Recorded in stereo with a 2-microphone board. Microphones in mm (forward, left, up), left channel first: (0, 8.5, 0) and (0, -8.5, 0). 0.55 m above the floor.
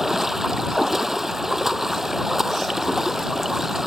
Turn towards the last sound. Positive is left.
turn(degrees=-15)  # may be behind; listen again after turning